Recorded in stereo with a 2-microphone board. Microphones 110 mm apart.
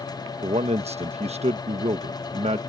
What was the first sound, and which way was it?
A man speaking, 75° right (ahead or behind).